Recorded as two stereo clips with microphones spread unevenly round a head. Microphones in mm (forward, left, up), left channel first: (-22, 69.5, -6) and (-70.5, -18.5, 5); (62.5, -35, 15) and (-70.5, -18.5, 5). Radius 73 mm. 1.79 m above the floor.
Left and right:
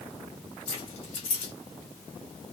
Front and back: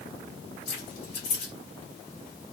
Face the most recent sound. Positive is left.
turn(degrees=45)